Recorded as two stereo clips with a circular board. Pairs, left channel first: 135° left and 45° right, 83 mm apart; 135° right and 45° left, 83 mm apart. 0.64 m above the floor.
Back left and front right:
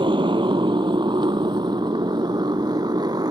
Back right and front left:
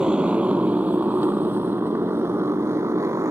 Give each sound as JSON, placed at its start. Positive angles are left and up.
{"t": 0.0, "sound": "a motorcycle", "azimuth_deg": -35}